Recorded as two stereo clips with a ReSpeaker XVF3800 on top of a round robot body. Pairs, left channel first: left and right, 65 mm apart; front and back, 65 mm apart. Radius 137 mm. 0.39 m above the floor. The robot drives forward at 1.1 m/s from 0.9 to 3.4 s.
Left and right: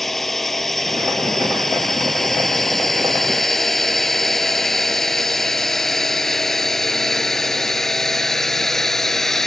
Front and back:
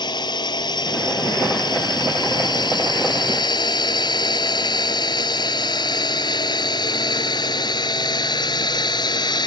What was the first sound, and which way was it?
A drone, 5° left.